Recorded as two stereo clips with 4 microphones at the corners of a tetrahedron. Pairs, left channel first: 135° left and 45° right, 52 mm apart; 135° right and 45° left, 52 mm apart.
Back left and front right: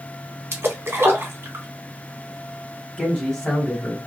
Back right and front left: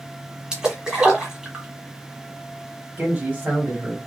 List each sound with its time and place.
0.5 s a splash: 25° right, 1.1 m
3.0 s a man speaking: 65° left, 1.8 m